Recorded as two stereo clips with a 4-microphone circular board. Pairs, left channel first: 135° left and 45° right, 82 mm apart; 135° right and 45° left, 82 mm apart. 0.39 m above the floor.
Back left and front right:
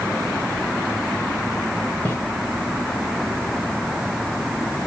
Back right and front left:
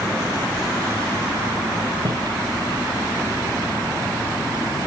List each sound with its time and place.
2.0 s footsteps: 75° left, 2.0 m